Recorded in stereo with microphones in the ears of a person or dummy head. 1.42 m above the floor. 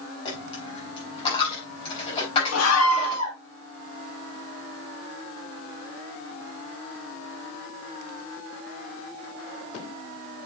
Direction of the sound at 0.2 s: 30° left (ahead or behind).